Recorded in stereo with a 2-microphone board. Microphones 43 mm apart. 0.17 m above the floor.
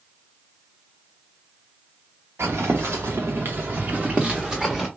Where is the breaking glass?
I don't hear breaking glass.